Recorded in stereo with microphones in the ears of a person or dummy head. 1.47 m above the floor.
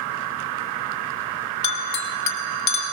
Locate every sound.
1.6 s a clink: 20° left (ahead or behind), 2 m